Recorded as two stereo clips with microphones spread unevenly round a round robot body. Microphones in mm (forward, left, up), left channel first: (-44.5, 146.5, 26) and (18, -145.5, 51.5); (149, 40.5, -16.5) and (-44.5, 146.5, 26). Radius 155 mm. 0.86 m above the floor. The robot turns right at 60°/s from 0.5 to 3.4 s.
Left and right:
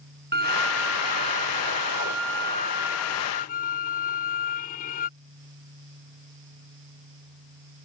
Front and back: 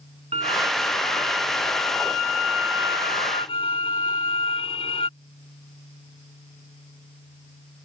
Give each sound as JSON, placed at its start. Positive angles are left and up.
{"t": 0.3, "sound": "a violin", "azimuth_deg": -135}